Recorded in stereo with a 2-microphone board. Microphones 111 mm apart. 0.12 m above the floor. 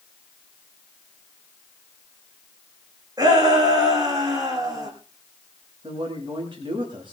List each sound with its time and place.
3.2 s a shout: 35° right (ahead or behind), 8 m
5.8 s a man speaking: 50° right (ahead or behind), 9.5 m